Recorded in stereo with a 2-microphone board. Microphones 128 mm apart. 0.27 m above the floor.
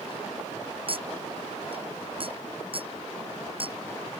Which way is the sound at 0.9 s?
45° right (ahead or behind).